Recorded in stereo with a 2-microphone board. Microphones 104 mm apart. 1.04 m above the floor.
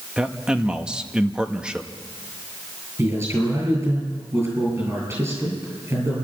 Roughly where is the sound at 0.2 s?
Centre.